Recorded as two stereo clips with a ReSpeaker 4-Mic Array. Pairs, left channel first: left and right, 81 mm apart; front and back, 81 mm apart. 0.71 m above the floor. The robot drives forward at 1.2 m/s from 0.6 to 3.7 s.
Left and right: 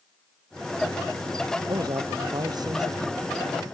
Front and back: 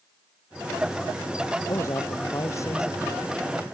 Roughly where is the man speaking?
Ahead right.